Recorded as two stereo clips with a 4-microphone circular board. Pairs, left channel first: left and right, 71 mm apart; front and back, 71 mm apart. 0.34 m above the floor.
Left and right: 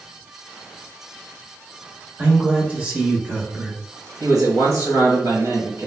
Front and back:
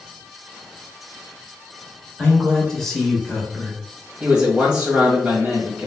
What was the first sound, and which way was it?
A man speaking, 70° right.